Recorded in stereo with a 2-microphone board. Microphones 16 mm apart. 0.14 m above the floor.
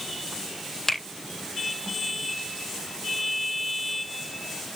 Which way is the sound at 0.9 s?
35° left (ahead or behind).